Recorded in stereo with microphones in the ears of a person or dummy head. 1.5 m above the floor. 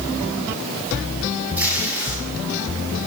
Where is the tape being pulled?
10° right (ahead or behind), 8 m.